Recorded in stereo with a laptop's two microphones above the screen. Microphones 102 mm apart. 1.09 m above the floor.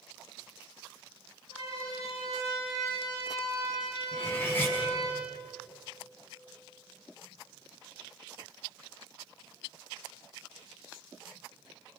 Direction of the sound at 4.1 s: 25° left (ahead or behind).